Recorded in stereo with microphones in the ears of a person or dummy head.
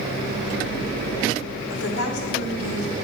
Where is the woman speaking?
80° left, 1.6 m; by 3.0 s 65° left (ahead or behind), 3.5 m.